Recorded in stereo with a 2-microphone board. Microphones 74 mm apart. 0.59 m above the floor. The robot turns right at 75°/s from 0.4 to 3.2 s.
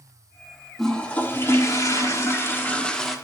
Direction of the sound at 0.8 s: 5° left.